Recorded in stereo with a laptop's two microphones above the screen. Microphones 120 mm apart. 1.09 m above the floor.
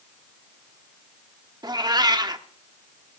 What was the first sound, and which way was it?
A cat meowing, 35° right (ahead or behind).